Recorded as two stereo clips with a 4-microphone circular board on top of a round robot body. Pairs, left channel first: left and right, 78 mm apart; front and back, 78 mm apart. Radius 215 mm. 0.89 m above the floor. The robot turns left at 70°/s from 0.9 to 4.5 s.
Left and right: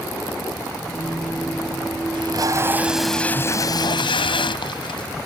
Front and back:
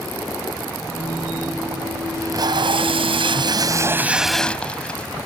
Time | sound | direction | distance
2.1 | tape being pulled | 120° right | ?